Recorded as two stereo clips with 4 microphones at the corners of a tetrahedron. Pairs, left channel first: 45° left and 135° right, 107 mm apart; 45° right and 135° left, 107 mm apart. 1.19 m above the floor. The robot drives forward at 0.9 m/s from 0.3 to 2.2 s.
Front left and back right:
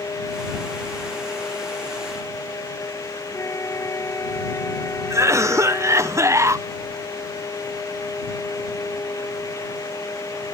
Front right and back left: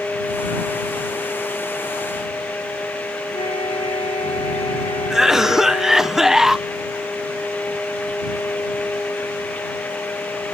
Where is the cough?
145° right.